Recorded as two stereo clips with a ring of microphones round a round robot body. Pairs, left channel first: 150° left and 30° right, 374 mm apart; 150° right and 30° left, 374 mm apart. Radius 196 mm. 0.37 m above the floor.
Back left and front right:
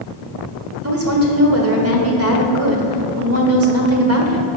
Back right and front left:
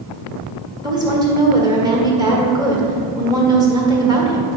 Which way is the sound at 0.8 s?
40° right.